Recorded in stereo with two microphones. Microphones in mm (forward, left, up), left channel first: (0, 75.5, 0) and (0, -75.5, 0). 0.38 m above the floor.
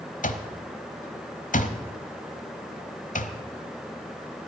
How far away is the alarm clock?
About 1.1 m.